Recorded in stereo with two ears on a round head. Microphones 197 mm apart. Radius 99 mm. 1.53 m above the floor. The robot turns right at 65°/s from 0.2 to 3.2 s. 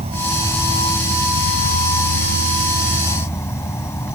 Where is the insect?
30° right; by 4.2 s 165° left.